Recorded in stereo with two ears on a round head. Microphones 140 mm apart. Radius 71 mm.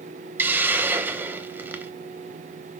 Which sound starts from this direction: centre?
A hiss, at 0.4 s.